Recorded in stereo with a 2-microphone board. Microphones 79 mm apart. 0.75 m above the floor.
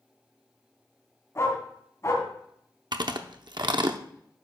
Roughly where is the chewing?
Right.